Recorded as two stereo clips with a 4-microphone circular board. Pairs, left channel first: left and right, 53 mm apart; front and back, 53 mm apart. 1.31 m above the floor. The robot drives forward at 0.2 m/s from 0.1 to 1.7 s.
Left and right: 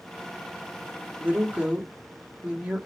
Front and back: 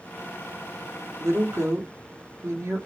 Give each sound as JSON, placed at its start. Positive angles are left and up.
{"t": 1.2, "sound": "a woman speaking", "azimuth_deg": -155, "distance_m": 1.0}